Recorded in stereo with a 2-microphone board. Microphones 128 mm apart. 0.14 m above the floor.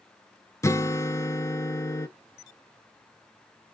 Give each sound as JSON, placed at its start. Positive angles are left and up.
{"t": 0.6, "sound": "a guitar", "side_deg": 25, "distance_m": 0.6}